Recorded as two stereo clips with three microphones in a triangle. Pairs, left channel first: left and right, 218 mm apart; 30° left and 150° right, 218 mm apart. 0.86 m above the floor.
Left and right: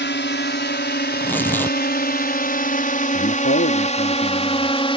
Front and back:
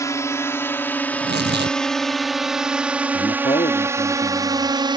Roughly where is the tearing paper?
Behind.